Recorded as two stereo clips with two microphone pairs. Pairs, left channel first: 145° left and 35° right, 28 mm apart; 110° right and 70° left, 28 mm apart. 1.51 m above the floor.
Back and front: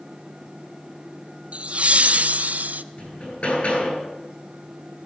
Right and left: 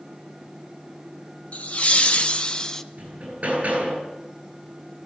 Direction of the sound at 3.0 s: 105° left.